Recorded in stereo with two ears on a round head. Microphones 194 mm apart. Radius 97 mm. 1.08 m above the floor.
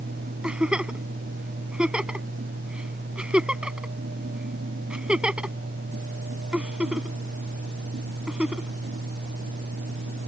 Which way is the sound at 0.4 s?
5° right (ahead or behind).